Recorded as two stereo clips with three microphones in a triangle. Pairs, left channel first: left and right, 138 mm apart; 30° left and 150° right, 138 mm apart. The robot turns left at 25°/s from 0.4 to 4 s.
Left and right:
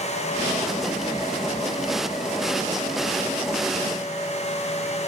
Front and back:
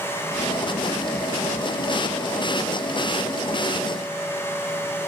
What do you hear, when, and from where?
Only background noise.